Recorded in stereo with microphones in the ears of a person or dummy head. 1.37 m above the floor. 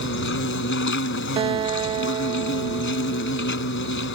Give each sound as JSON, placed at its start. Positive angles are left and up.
{"t": 0.0, "sound": "an insect", "side_deg": 60}
{"t": 1.4, "sound": "a guitar", "side_deg": -25}